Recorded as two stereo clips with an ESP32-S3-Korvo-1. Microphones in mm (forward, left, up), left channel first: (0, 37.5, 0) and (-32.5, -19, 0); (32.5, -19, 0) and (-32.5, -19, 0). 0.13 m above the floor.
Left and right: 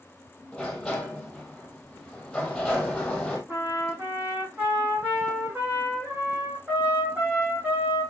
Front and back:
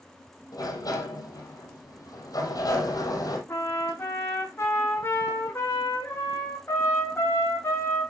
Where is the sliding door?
20° right, 3 m.